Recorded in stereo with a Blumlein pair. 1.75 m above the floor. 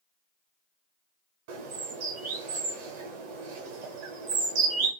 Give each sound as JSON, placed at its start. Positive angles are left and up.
{"t": 1.5, "sound": "a bird", "azimuth_deg": -45, "distance_m": 0.8}